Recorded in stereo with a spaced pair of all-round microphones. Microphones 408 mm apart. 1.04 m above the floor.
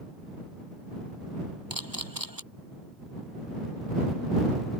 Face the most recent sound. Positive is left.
turn(degrees=-55)  # may be behind; listen again after turning